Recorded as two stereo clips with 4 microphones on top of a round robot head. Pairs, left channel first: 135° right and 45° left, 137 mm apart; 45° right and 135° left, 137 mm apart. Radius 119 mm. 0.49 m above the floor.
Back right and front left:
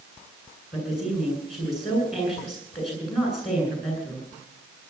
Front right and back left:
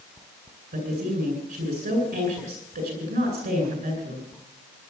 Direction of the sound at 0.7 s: 135° left.